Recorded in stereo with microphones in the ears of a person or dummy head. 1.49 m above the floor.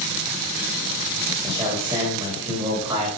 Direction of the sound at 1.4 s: 20° right (ahead or behind).